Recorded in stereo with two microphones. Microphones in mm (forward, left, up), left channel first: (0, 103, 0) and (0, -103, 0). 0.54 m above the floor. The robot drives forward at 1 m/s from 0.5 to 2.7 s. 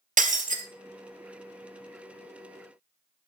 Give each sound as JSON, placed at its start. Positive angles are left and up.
{"t": 0.2, "sound": "breaking glass", "side_deg": -40, "distance_m": 1.0}